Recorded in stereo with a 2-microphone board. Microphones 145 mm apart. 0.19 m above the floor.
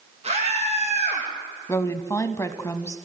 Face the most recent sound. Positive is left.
turn(degrees=20)  # may be behind; listen again after turning